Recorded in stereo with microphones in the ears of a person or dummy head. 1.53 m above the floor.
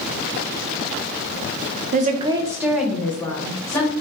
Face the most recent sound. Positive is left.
turn(degrees=10)  # may be behind; listen again after turning